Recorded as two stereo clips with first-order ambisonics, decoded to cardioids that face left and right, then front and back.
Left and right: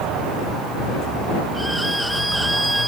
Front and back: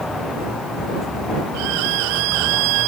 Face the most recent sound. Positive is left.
turn(degrees=-175)